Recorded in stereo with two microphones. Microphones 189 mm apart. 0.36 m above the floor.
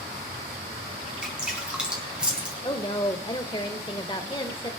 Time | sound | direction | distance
1.2 | dripping | 5° right (ahead or behind) | 4 m
2.6 | a woman speaking | 25° left (ahead or behind) | 0.9 m